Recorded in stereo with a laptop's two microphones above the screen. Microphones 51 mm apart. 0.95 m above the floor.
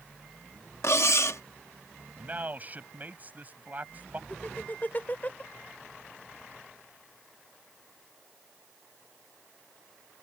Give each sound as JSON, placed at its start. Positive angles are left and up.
{"t": 0.8, "sound": "cutlery clinking", "side_deg": 65}
{"t": 2.2, "sound": "a man speaking", "side_deg": -35}
{"t": 4.3, "sound": "laughter", "side_deg": 35}